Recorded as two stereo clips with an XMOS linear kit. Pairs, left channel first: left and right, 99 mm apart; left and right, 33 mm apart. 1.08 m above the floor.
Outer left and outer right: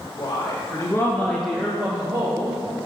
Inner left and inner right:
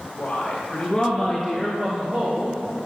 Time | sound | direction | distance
0.2 | a woman speaking | 45° left (ahead or behind) | 1.6 m